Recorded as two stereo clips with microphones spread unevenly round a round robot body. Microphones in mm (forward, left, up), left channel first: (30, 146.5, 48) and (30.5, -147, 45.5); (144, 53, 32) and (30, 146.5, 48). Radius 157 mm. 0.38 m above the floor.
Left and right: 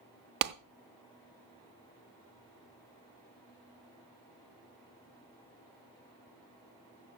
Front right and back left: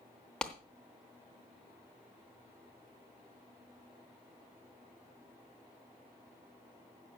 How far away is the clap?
About 0.7 m.